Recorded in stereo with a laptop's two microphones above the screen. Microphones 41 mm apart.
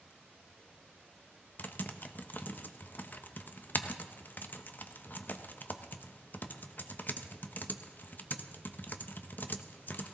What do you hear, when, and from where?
1.6 s typing on a keyboard: 45° left (ahead or behind), 0.7 m